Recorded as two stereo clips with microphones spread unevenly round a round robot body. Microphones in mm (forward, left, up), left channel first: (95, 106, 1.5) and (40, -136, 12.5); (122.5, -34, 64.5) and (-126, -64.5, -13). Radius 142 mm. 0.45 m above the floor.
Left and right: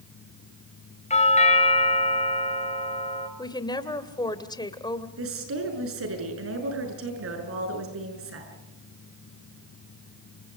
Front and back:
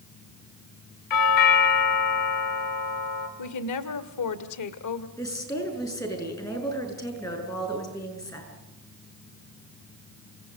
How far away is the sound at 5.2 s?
About 7 m.